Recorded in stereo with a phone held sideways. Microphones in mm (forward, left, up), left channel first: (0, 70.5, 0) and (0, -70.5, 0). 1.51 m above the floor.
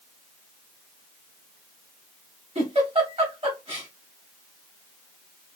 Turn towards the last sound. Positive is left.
turn(degrees=-45)  # may be behind; listen again after turning